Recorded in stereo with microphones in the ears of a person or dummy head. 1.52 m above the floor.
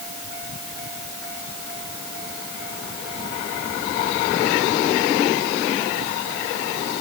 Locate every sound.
Only background noise.